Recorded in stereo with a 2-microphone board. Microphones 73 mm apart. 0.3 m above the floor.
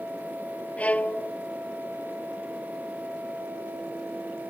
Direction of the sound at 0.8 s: 20° left (ahead or behind).